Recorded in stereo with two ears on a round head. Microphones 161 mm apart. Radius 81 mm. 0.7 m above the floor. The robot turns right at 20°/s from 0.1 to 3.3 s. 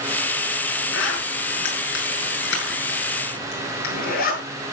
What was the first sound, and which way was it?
A zipper, 75° left (ahead or behind).